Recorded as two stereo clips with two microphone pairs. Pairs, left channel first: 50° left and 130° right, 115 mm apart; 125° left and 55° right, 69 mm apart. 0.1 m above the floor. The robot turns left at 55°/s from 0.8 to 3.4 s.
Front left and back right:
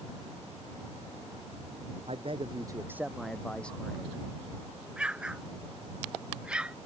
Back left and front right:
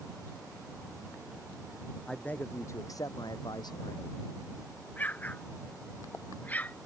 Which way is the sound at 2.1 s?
155° right.